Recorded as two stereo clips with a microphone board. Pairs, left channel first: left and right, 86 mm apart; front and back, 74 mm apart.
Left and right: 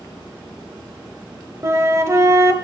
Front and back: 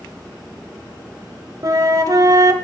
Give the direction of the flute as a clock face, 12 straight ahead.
5 o'clock.